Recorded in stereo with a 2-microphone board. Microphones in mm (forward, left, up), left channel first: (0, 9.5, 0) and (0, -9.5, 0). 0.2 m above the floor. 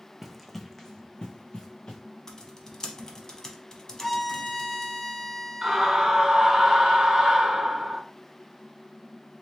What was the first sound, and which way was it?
Running footsteps, 15° right (ahead or behind).